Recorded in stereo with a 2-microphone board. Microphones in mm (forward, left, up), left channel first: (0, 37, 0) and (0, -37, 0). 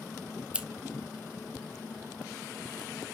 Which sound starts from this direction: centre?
Scissors, at 0.5 s.